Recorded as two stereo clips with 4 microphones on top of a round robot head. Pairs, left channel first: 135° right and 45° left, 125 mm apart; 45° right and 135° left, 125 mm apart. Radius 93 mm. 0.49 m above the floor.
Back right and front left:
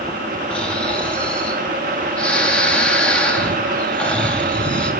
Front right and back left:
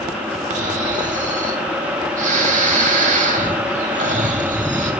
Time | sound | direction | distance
0.5 | snoring | 145° left | 3 m